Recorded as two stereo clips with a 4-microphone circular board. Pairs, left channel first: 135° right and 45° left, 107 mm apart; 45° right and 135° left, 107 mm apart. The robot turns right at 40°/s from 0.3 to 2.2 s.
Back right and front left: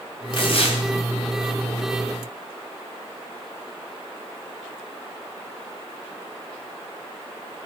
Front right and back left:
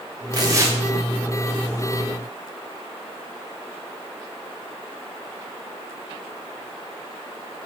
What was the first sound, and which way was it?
Tearing paper, 175° right.